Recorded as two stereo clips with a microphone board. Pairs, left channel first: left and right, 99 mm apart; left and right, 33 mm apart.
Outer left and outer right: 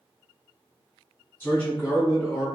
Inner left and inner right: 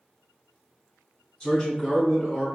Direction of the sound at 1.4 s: 20° left (ahead or behind).